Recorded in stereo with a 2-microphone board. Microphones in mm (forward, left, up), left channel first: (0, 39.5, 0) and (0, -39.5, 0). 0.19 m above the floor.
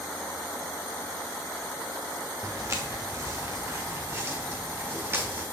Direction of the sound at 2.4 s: 40° right (ahead or behind).